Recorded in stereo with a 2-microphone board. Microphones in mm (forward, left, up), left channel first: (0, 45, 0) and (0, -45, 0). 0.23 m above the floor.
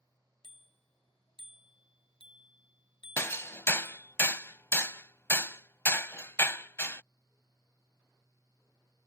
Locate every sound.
0.4 s a bicycle bell: 70° left (ahead or behind); by 4.2 s 50° left (ahead or behind)
3.2 s hammering: 30° left (ahead or behind)